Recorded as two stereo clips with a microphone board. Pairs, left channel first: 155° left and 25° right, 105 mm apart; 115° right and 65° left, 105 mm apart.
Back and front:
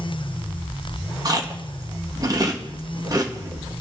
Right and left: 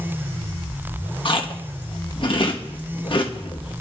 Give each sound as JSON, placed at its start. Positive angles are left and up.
{"t": 1.2, "sound": "chewing", "azimuth_deg": -75, "distance_m": 1.4}